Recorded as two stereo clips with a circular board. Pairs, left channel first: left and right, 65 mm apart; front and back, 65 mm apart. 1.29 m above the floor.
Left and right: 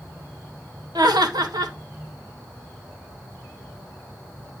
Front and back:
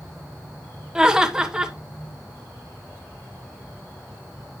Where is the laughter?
100° right, 1.5 m.